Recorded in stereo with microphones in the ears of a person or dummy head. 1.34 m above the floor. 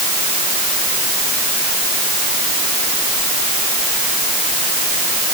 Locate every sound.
Only background noise.